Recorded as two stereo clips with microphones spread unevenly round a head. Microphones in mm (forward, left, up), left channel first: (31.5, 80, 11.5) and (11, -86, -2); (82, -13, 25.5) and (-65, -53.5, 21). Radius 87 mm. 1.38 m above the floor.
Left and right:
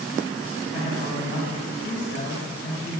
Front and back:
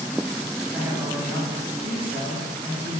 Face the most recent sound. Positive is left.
turn(degrees=120)